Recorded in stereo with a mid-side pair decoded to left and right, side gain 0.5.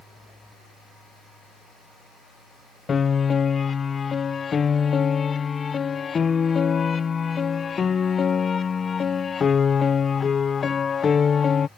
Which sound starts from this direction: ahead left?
A piano, at 2.9 s.